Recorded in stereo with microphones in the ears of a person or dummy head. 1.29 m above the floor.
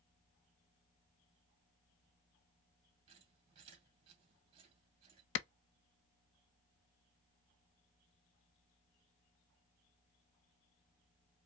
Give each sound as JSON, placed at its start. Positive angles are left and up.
{"t": 3.1, "sound": "a squeak", "side_deg": -35, "distance_m": 2.0}
{"t": 5.3, "sound": "a clap", "side_deg": 65, "distance_m": 0.6}